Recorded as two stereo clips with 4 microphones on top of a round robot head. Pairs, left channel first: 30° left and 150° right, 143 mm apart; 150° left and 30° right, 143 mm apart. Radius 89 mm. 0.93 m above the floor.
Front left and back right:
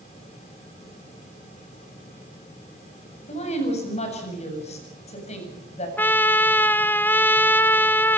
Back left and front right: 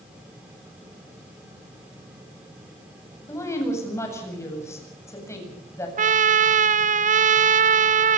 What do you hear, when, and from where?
3.3 s a woman speaking: 75° left, 7.5 m
6.0 s a trumpet: 45° right, 0.8 m